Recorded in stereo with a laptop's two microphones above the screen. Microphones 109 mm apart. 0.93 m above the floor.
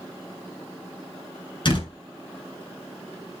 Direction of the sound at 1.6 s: 45° left (ahead or behind).